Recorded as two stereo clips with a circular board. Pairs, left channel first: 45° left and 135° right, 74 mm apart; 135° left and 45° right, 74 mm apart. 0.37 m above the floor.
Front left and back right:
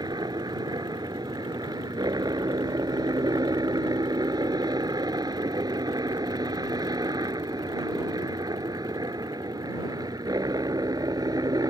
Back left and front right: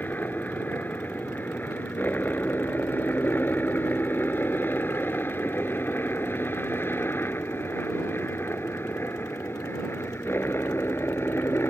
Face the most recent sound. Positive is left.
turn(degrees=-170)